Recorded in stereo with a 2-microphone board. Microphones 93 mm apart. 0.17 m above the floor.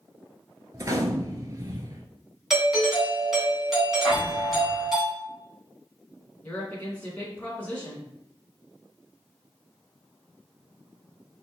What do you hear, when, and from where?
0.7 s a gunshot: 40° right (ahead or behind), 0.7 m
2.5 s a doorbell: 5° right (ahead or behind), 2 m
4.0 s an explosion: 5° left (ahead or behind), 2.5 m
6.4 s a woman speaking: 15° left (ahead or behind), 2.0 m